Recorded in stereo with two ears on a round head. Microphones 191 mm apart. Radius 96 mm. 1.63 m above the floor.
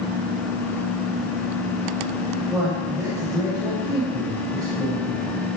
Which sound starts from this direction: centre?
A man speaking, at 2.5 s.